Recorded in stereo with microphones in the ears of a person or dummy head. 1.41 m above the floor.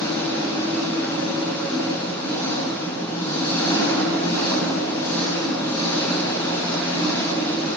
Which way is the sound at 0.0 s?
15° left (ahead or behind).